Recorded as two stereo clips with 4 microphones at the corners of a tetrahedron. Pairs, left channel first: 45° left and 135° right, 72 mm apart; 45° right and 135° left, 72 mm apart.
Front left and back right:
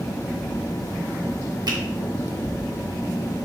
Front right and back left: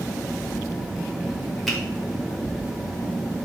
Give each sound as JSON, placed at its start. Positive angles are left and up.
{"t": 1.7, "sound": "a finger snap", "azimuth_deg": -130, "distance_m": 0.9}